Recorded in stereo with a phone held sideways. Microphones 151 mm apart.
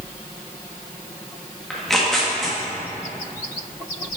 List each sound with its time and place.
1.7 s tearing paper: centre (ahead or behind), 1.7 m